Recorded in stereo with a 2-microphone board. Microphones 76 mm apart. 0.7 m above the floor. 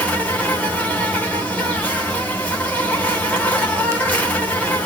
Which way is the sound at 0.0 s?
20° left (ahead or behind).